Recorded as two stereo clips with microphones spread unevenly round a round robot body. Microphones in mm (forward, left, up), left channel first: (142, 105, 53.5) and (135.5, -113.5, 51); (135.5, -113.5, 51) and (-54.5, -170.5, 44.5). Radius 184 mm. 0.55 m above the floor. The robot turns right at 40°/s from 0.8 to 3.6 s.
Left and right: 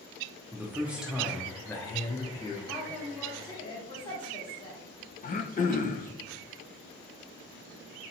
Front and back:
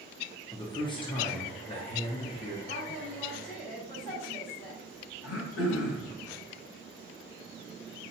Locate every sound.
0.5 s a man speaking: 20° right, 0.7 m; by 2.6 s 50° left, 0.7 m
2.7 s a woman speaking: 5° right, 1.3 m; by 4.8 s 35° left, 1.3 m
5.2 s throat clearing: 30° left, 0.6 m